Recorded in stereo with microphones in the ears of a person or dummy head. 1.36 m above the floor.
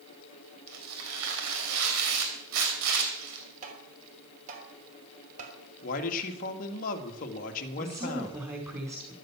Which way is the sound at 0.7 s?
75° right (ahead or behind).